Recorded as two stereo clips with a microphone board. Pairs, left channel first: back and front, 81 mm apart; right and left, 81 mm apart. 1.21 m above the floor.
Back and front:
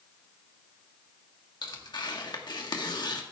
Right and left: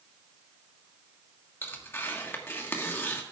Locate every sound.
1.6 s tearing paper: 150° right, 1.4 m